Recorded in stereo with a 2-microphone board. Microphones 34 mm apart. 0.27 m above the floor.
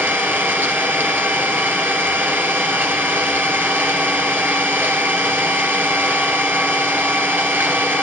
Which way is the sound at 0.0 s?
75° right (ahead or behind).